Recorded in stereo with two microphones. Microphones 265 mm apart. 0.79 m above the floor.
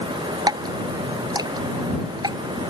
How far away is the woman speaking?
I don't hear a woman speaking.